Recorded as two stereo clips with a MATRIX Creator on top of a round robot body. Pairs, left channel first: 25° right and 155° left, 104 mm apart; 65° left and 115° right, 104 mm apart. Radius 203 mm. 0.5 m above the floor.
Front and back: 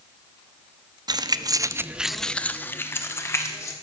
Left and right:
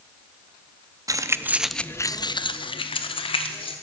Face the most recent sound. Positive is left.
turn(degrees=40)